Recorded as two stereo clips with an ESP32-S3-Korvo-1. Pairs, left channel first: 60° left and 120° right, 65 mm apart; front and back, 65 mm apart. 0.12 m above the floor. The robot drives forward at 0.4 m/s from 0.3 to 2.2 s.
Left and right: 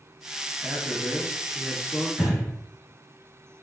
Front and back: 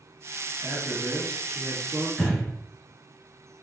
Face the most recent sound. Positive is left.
turn(degrees=-65)